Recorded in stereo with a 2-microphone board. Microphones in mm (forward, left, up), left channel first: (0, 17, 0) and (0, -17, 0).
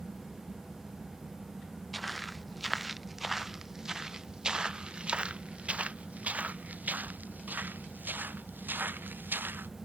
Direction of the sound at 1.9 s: Centre (ahead or behind).